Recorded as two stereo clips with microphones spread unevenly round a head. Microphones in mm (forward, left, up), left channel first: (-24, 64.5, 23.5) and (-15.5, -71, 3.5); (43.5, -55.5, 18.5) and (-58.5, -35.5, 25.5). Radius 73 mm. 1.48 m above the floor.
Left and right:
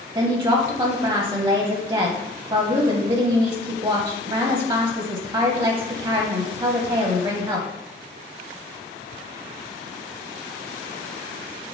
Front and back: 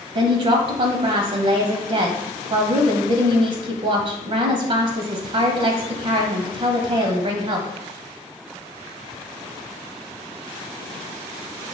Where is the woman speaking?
160° right, 0.6 m.